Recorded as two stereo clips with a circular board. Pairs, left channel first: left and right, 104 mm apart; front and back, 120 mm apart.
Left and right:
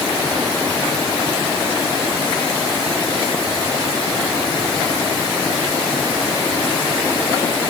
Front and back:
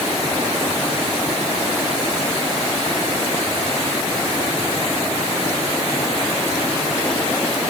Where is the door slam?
No door slam in this recording.